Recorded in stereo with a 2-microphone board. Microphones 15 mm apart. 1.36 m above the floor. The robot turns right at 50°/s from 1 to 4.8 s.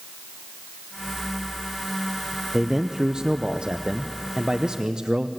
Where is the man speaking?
165° right, 0.7 m; by 5.3 s 55° right, 0.7 m.